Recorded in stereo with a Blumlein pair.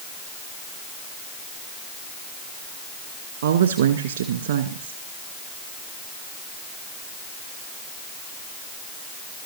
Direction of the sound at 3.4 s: 65° right.